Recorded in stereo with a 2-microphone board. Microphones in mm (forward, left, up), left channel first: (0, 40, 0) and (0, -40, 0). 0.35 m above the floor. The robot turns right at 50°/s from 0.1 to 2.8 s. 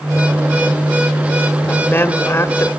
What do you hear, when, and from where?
1.7 s a woman speaking: 50° left, 1.2 m; by 2.7 s 105° left, 1.2 m